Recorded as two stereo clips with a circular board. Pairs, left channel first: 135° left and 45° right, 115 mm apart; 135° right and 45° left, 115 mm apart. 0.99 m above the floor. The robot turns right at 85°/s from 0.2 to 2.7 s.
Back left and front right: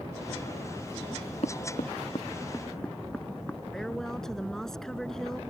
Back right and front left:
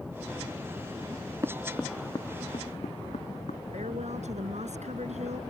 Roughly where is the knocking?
Left.